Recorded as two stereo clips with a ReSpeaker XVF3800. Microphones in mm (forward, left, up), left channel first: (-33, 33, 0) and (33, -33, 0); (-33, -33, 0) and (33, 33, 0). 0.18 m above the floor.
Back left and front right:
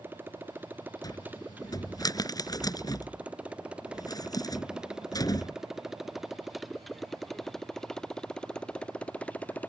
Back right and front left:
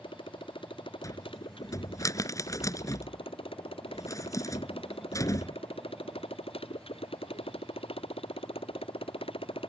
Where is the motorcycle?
110° right; by 9.7 s 150° right.